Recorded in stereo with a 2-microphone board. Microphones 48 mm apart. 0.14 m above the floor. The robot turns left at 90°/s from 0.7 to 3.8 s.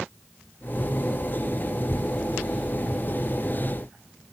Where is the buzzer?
I don't hear a buzzer.